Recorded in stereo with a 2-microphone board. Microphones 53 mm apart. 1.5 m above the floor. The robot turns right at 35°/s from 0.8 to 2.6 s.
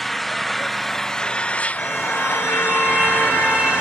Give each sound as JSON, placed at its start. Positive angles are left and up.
{"t": 0.0, "sound": "an engine running", "azimuth_deg": 5, "distance_m": 0.7}
{"t": 1.8, "sound": "a car horn", "side_deg": 5, "distance_m": 4.5}